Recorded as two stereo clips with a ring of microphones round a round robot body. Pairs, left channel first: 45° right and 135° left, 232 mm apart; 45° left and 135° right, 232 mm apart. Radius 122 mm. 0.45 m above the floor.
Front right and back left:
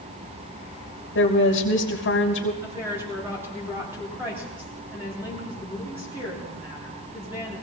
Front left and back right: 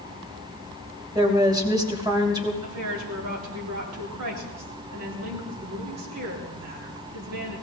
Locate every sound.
1.1 s a woman speaking: 65° right, 2.5 m
2.6 s a woman speaking: 145° right, 6 m